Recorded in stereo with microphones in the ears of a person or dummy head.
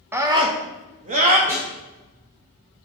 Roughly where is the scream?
Centre.